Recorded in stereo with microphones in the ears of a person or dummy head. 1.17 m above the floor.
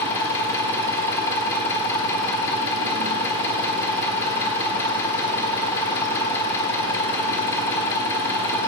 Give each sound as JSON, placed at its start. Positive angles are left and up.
{"t": 0.0, "sound": "an engine running", "side_deg": 15, "distance_m": 1.1}